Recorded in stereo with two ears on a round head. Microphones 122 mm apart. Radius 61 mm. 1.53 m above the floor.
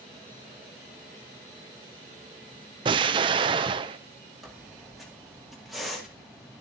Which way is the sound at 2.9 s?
35° right (ahead or behind).